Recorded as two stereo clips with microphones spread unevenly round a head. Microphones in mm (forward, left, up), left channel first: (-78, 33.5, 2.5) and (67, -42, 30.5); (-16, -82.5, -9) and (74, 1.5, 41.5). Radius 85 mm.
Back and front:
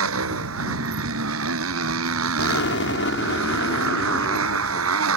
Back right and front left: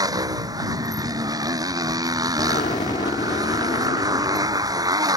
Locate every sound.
0.0 s a motorcycle: 15° right
2.4 s an explosion: 165° left